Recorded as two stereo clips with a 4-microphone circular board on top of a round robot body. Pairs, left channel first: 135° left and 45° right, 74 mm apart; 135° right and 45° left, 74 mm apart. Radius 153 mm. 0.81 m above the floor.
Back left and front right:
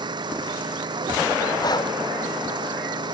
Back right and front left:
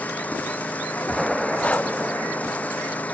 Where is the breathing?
155° left.